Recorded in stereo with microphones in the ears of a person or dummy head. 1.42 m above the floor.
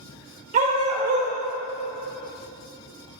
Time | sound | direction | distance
0.5 | a dog barking | 40° right (ahead or behind) | 2.5 m